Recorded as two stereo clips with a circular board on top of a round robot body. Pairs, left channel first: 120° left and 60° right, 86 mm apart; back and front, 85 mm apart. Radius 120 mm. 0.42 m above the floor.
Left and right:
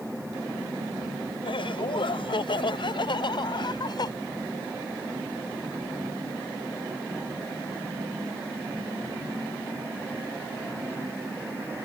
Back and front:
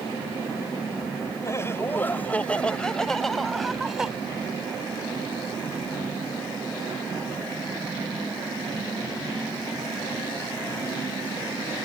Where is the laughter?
125° left; by 4.1 s 85° left.